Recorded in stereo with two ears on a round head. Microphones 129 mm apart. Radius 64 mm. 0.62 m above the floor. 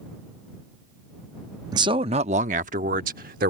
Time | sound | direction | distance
1.7 | a man speaking | 25° right (ahead or behind) | ?